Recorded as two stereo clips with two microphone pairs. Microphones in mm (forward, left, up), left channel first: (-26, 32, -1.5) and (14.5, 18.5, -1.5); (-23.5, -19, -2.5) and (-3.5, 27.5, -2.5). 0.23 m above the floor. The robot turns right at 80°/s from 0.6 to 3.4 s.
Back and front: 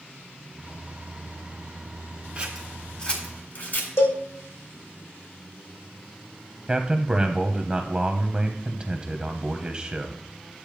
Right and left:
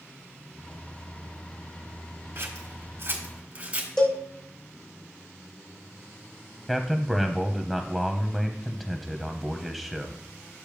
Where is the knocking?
I don't hear knocking.